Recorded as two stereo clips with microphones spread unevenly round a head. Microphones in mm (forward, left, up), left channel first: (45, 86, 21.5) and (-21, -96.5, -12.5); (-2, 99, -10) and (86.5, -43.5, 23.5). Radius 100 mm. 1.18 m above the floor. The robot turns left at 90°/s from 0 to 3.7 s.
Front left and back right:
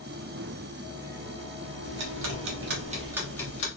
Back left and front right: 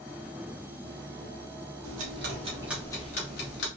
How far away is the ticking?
About 1.0 m.